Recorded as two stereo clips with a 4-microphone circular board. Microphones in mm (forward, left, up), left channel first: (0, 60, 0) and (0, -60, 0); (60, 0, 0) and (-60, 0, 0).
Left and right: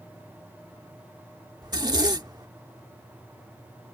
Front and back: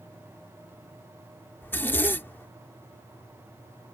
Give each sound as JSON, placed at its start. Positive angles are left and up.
{"t": 1.6, "sound": "a zipper", "azimuth_deg": -65}